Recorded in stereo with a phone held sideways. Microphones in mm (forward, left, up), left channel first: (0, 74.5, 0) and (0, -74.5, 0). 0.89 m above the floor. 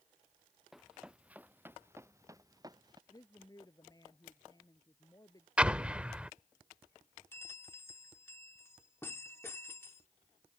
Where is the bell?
15° left (ahead or behind).